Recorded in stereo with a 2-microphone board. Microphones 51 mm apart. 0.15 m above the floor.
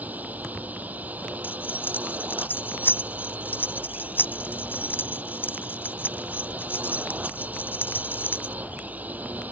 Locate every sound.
0.0 s a drone: 30° right (ahead or behind)
1.4 s keys jangling: 40° left (ahead or behind)